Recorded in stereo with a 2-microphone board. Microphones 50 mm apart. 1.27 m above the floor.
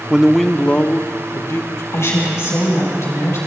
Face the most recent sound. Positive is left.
turn(degrees=75)  # may be behind; listen again after turning